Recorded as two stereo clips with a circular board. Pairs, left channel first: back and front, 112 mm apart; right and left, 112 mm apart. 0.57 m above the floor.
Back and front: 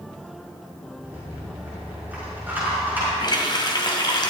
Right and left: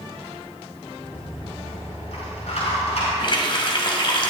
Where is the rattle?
75° right, 6.5 m.